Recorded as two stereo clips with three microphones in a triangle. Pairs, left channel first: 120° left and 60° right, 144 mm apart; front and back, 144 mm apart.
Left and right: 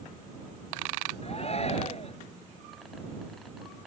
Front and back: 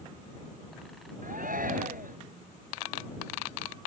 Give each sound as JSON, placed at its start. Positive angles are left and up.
{"t": 1.2, "sound": "a shout", "azimuth_deg": 165}